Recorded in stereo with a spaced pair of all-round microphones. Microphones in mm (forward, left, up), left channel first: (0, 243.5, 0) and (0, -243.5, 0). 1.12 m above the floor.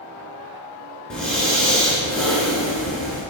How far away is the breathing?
About 4 m.